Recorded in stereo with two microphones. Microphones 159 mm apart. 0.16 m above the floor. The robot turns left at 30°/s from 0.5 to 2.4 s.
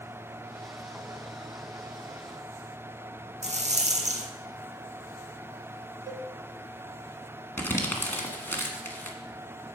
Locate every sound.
3.4 s a rattle: 45° right (ahead or behind), 1.4 m
6.1 s a cowbell: 25° right (ahead or behind), 1.1 m
7.6 s crumpling: 15° left (ahead or behind), 1.6 m